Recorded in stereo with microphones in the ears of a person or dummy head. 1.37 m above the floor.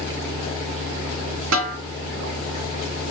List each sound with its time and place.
1.5 s a snare drum: 70° right (ahead or behind), 1.7 m